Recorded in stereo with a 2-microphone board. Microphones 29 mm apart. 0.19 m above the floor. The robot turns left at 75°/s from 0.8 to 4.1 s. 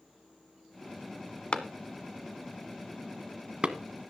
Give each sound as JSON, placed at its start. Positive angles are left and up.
{"t": 1.5, "sound": "a clap", "side_deg": 40, "distance_m": 1.1}